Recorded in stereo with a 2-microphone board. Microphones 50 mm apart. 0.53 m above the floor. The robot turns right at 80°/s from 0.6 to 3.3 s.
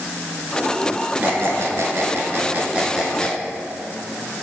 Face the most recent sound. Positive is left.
turn(degrees=20)  # may be behind; listen again after turning